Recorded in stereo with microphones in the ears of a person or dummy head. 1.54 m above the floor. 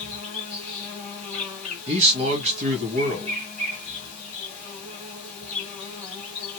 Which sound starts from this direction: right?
A man speaking, at 1.9 s.